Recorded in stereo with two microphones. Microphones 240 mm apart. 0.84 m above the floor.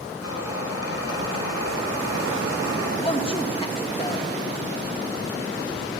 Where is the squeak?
80° left, 4.5 m.